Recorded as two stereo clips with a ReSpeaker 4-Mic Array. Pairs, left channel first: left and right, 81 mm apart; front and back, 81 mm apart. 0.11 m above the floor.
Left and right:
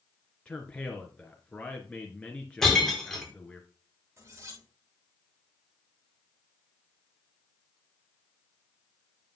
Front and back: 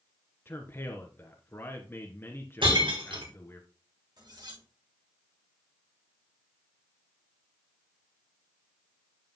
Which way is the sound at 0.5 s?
25° left.